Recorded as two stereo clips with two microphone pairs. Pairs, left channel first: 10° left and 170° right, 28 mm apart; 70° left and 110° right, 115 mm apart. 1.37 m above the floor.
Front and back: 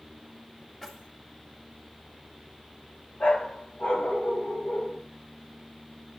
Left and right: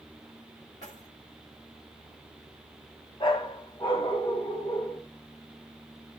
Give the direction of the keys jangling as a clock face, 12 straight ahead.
9 o'clock.